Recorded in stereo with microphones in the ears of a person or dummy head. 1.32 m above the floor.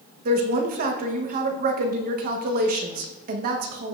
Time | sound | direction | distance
0.2 | a woman speaking | 50° right (ahead or behind) | 1.1 m